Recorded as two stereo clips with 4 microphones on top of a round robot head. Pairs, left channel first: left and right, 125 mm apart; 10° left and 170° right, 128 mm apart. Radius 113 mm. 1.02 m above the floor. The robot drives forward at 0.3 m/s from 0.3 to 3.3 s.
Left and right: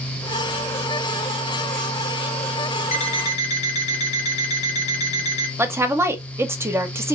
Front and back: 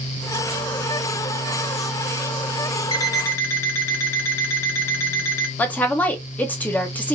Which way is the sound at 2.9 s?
65° left.